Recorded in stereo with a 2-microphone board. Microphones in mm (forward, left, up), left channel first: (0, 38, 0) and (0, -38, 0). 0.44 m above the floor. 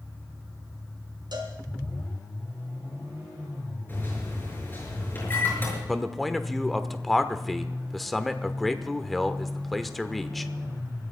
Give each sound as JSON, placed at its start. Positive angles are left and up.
{"t": 1.3, "sound": "a cowbell", "side_deg": -70, "distance_m": 3.0}
{"t": 3.9, "sound": "a microwave", "side_deg": 30, "distance_m": 6.0}
{"t": 5.9, "sound": "a man speaking", "side_deg": 0, "distance_m": 1.0}